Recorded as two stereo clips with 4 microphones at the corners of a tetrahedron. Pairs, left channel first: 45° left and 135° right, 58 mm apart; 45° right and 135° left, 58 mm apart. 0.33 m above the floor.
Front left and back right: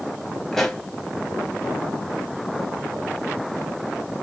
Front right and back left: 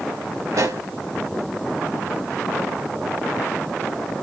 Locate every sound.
0.5 s a pop: 130° left, 0.8 m